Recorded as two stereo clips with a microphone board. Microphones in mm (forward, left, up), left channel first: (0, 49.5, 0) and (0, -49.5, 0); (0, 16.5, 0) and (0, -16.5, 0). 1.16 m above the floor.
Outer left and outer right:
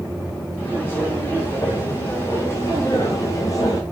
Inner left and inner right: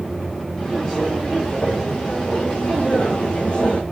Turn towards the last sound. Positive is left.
turn(degrees=35)  # may be behind; listen again after turning